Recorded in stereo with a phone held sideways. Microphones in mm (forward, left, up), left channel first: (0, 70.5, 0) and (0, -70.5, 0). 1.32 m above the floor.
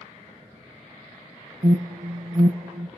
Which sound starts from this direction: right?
An alarm, at 1.6 s.